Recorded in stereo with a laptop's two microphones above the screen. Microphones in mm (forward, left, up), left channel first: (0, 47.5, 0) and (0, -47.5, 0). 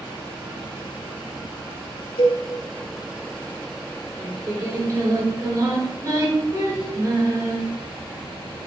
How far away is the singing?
About 4 m.